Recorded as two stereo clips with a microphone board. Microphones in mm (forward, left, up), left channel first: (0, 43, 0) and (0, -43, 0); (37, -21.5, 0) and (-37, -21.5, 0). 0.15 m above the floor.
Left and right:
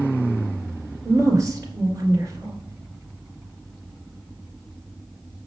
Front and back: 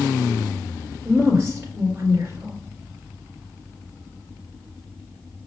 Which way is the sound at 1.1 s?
130° right.